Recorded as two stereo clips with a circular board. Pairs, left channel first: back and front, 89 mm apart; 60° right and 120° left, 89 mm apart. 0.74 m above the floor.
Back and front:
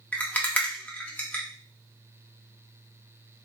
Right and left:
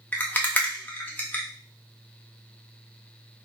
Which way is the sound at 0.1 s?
120° right.